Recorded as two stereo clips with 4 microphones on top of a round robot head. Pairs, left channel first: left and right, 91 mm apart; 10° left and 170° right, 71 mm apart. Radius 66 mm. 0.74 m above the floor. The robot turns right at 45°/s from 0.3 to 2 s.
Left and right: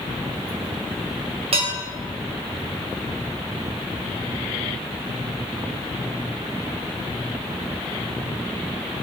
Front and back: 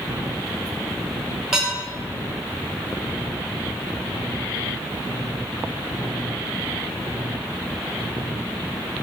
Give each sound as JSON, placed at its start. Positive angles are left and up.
{"t": 1.5, "sound": "dishes clattering", "azimuth_deg": -90, "distance_m": 1.7}